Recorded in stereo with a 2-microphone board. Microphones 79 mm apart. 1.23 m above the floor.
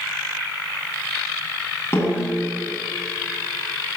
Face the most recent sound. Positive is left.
turn(degrees=30)  # may be behind; listen again after turning